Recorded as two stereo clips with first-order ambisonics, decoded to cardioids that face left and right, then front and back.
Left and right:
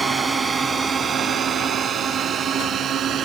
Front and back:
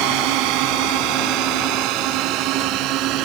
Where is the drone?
170° right; by 3.3 s 145° right.